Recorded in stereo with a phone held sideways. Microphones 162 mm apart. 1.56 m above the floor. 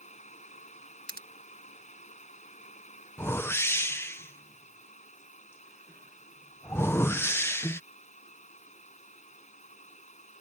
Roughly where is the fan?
Left.